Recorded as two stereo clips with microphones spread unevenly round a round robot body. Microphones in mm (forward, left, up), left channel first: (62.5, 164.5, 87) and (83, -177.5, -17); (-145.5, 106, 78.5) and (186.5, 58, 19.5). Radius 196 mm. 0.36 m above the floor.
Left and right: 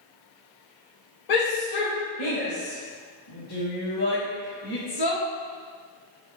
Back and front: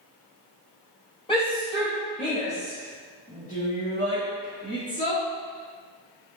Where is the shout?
90° left, 2.0 m; by 5.2 s 100° left, 4 m.